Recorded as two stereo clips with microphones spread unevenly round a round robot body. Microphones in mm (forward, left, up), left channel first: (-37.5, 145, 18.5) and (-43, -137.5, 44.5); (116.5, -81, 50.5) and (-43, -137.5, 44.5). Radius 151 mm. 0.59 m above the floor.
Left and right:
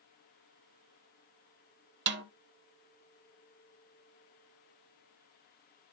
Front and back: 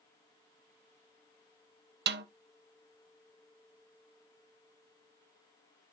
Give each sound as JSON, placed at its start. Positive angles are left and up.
{"t": 2.1, "sound": "a snare drum", "azimuth_deg": -140, "distance_m": 0.7}